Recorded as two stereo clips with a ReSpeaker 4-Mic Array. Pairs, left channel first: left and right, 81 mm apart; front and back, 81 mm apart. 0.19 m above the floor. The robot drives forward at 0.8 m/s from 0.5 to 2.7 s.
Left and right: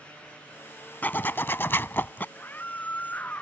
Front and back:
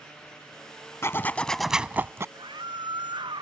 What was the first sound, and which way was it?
A zipper, 35° left.